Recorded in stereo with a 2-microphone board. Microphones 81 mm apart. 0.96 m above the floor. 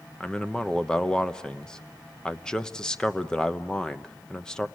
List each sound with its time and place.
0.2 s a man speaking: 10° left (ahead or behind), 0.8 m